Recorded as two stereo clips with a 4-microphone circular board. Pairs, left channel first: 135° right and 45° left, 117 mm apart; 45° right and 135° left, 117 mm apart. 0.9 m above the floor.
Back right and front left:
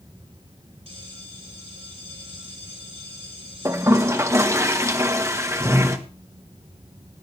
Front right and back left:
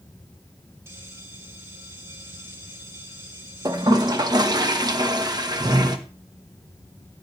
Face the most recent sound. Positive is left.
turn(degrees=100)